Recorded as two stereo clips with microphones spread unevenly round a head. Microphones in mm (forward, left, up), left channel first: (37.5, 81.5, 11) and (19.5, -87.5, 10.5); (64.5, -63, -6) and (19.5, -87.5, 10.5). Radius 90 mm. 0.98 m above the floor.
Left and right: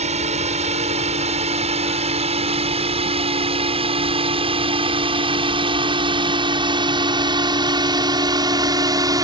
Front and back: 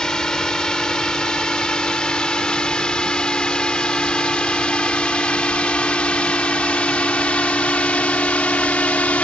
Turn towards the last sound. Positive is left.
turn(degrees=-30)